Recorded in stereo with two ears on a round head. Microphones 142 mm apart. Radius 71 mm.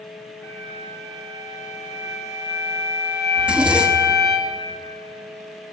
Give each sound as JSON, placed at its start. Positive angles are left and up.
{"t": 0.4, "sound": "a flute", "side_deg": 20, "distance_m": 3.0}
{"t": 3.4, "sound": "a zipper", "side_deg": -5, "distance_m": 1.2}